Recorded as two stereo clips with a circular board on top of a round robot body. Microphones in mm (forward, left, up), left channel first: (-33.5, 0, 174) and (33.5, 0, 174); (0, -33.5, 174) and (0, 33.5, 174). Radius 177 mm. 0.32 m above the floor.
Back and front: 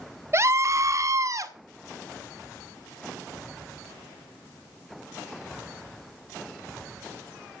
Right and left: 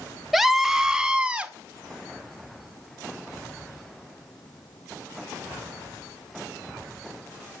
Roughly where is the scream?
Ahead.